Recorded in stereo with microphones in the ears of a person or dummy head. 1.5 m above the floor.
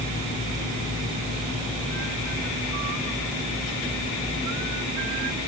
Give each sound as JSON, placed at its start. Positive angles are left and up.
{"t": 0.0, "sound": "a fan", "side_deg": 40, "distance_m": 4.5}